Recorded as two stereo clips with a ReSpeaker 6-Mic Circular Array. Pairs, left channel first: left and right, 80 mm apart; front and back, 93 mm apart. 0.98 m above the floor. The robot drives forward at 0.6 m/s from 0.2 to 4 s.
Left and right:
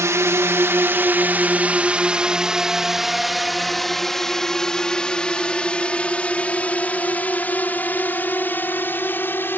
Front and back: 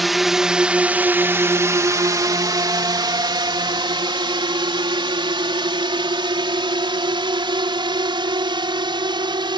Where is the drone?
90° right; by 9.6 s 150° left.